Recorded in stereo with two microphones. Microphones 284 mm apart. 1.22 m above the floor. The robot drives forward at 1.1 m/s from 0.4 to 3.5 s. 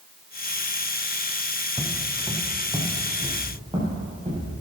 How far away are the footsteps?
About 3.5 m.